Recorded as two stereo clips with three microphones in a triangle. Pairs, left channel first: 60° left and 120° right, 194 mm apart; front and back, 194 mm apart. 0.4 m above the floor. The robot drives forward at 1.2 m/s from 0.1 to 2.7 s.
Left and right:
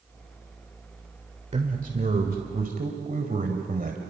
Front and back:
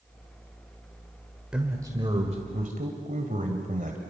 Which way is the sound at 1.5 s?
100° right.